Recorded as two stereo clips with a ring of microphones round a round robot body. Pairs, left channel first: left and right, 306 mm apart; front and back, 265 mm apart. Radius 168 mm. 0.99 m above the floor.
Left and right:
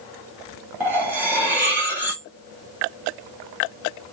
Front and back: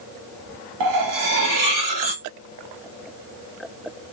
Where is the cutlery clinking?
175° right, 1.3 m.